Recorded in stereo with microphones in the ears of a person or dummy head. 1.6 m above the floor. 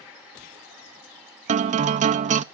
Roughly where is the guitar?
Right.